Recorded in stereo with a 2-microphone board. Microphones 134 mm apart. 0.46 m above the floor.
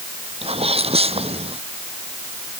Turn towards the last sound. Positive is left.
turn(degrees=-45)  # may be behind; listen again after turning